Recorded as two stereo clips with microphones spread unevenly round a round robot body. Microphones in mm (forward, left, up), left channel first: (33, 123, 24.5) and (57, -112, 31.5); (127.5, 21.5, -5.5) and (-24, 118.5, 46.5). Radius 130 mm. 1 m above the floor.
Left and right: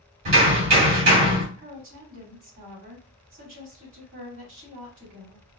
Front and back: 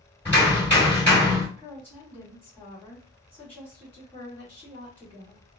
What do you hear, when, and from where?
0.2 s hammering: 130° right, 2.5 m
1.6 s a woman speaking: 130° right, 2.5 m